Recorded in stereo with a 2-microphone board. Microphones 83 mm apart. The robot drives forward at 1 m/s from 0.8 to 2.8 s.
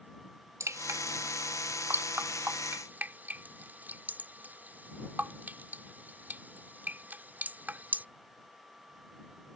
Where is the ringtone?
I don't hear a ringtone.